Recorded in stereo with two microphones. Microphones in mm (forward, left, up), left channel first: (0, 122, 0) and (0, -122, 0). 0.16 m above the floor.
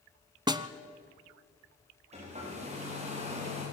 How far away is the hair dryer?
About 8 m.